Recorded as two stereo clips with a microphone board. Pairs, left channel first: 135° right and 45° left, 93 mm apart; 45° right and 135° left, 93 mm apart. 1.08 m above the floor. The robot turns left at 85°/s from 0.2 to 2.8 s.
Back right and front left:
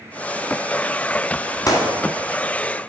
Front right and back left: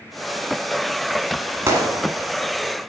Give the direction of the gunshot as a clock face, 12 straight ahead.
6 o'clock.